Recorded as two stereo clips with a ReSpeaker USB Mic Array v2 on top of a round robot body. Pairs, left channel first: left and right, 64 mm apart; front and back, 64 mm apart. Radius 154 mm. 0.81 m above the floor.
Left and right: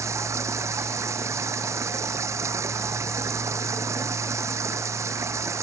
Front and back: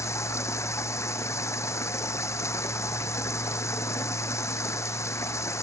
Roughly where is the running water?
Ahead right.